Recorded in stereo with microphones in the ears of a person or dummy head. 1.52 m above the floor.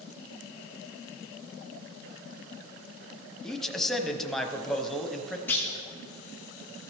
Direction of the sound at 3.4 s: Centre (ahead or behind).